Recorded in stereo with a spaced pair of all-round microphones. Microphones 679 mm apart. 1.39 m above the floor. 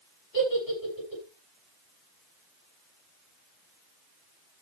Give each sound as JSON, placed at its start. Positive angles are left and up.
{"t": 0.3, "sound": "a giggle", "side_deg": 55, "distance_m": 7.0}